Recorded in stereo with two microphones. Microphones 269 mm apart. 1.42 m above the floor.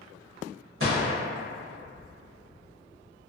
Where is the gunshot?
50° right (ahead or behind), 1.1 m.